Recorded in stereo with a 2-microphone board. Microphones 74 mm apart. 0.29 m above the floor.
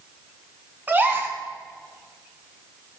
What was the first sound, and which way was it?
A gasp, 25° right (ahead or behind).